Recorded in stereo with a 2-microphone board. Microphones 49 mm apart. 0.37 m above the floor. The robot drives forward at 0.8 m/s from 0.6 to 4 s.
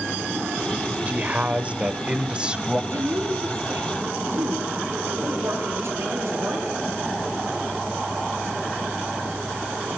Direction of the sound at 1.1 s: 30° right (ahead or behind).